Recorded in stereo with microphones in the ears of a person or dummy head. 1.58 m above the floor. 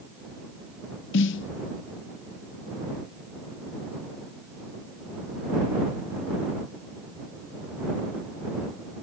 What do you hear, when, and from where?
1.1 s a snare drum: 75° left (ahead or behind)